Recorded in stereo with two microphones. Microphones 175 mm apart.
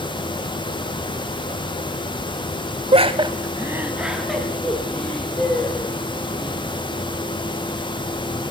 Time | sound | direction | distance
2.9 | laughter | 35° right (ahead or behind) | 1.3 m